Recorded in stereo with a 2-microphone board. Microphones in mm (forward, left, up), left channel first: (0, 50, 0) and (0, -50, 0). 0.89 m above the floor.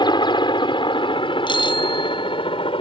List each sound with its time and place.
0.0 s a helicopter: 50° left (ahead or behind); by 2.8 s 60° left (ahead or behind)
1.5 s a bicycle bell: 50° left (ahead or behind)